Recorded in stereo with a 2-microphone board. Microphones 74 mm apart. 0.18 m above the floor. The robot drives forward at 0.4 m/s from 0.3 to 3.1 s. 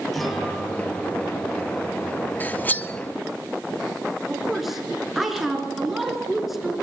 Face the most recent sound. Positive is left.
turn(degrees=-5)  # may be behind; listen again after turning